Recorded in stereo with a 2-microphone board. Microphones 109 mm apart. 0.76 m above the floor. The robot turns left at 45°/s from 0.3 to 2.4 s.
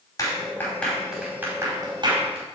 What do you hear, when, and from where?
0.2 s a clap: 35° left (ahead or behind), 5 m; by 2.5 s 60° right (ahead or behind), 5 m